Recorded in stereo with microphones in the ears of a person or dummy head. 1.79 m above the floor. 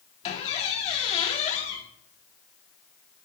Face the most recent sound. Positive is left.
turn(degrees=35)  # may be behind; listen again after turning